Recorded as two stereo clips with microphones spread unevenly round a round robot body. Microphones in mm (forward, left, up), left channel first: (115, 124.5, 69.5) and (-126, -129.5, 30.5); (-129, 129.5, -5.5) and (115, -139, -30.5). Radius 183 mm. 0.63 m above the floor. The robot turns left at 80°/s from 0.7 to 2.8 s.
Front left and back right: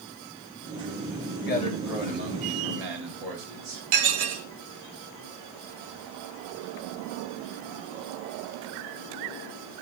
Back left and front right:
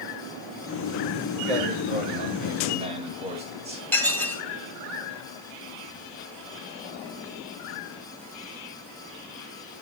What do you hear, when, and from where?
1.5 s a man speaking: 15° right, 9.5 m; by 3.8 s 120° right, 9.5 m
3.9 s dishes clattering: 140° right, 2.0 m